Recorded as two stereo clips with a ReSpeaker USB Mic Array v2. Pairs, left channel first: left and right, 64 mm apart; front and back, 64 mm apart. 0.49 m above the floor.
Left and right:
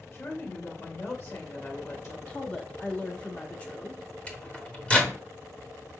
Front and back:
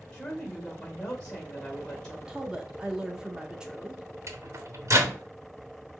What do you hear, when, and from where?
0.1 s a woman speaking: 80° left, 2 m
2.3 s a woman speaking: 125° left, 0.7 m
4.3 s a microwave: 160° left, 1.1 m